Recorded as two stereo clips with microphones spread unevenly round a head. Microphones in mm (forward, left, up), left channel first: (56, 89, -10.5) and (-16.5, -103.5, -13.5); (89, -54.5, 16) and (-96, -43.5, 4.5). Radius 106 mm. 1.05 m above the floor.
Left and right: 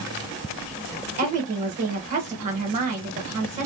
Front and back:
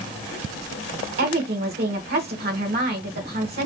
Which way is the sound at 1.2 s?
165° right.